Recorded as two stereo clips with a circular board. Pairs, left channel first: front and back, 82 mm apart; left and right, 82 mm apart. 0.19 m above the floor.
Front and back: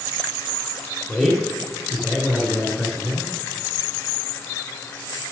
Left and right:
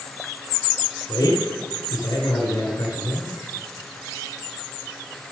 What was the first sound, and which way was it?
A man speaking, 80° left.